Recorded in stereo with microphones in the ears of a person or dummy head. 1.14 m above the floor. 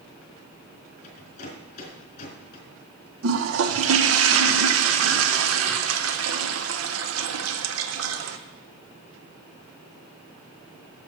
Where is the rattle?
40° left (ahead or behind), 4 m.